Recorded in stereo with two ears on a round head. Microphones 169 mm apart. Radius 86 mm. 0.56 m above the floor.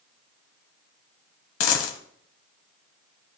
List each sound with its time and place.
1.6 s a dropped coin: 85° left, 1.2 m